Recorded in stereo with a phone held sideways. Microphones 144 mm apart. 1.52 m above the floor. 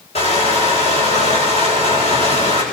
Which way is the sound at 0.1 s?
45° left (ahead or behind).